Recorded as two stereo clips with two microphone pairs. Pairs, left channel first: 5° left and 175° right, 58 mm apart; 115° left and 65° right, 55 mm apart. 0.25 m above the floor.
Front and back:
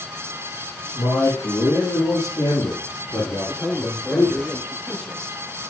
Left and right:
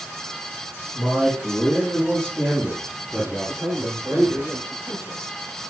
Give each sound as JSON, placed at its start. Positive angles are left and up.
{"t": 0.9, "sound": "a man speaking", "azimuth_deg": 0, "distance_m": 7.5}
{"t": 3.5, "sound": "a man speaking", "azimuth_deg": -70, "distance_m": 5.0}